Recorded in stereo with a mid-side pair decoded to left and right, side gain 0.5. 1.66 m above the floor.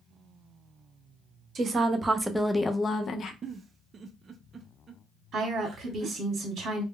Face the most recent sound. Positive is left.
turn(degrees=-50)